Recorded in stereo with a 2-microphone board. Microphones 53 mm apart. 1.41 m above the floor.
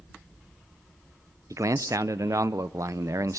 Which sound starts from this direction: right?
A man speaking, at 1.5 s.